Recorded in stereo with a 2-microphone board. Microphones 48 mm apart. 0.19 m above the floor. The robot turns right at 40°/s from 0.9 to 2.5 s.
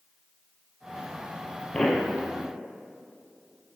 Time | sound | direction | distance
1.7 | a pop | 10° left (ahead or behind) | 2.5 m